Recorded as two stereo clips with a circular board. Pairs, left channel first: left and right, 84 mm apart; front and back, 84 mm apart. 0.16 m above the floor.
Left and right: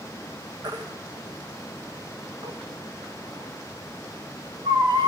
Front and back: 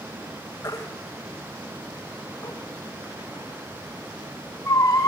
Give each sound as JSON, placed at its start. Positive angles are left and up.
{"t": 0.6, "sound": "a baby crying", "azimuth_deg": -55, "distance_m": 4.0}